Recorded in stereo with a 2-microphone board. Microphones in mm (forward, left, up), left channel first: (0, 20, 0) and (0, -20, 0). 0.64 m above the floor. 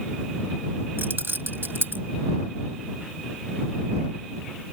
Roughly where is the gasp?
I don't hear a gasp.